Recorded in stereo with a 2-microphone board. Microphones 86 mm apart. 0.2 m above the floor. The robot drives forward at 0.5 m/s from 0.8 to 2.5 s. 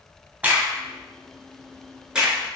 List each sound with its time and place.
0.4 s a crack: 20° right (ahead or behind), 0.5 m; by 2.4 s 10° right (ahead or behind), 1.0 m